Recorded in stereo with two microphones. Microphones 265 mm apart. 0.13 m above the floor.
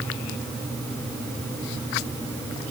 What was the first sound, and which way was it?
Only background noise.